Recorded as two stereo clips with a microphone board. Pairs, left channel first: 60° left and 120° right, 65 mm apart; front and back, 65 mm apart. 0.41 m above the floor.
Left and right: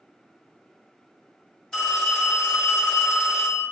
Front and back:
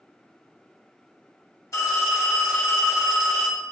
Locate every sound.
1.7 s a phone ringing: 20° right, 1.5 m